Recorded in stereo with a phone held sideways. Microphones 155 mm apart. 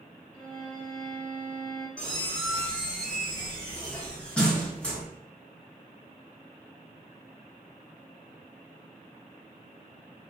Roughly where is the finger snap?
No finger snap in this recording.